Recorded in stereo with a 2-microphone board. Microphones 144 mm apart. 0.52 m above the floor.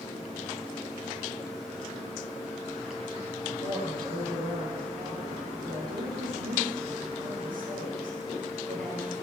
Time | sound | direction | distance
3.6 | a woman speaking | 80° right | 9.5 m